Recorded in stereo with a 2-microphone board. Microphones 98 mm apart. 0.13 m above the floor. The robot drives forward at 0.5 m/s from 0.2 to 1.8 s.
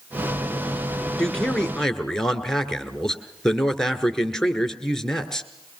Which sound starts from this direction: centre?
A man speaking, at 1.2 s.